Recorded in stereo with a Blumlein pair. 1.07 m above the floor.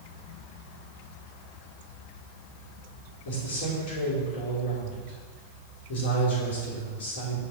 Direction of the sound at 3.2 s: 50° left.